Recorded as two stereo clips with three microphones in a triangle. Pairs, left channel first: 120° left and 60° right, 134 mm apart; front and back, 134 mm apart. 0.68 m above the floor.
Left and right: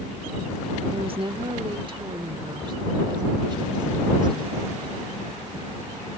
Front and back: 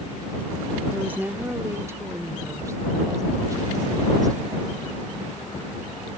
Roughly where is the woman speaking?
Right.